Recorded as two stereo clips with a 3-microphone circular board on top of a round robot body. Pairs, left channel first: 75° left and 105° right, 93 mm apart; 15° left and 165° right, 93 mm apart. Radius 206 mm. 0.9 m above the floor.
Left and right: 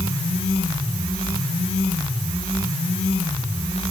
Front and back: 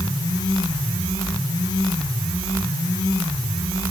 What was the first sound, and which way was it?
Only background noise.